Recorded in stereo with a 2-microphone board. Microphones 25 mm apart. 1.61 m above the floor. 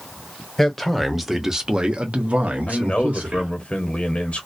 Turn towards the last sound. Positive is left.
turn(degrees=50)  # may be behind; listen again after turning